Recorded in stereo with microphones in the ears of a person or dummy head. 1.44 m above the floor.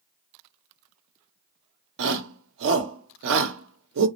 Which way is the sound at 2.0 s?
65° right (ahead or behind).